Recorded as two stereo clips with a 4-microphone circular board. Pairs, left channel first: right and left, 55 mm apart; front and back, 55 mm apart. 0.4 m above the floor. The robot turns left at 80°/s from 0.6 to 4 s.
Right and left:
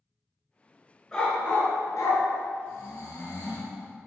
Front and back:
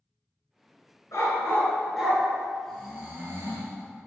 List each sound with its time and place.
1.1 s a dog barking: 5° right, 2.0 m; by 2.2 s 95° right, 2.0 m
2.7 s snoring: 80° right, 2 m; by 3.8 s 165° right, 2 m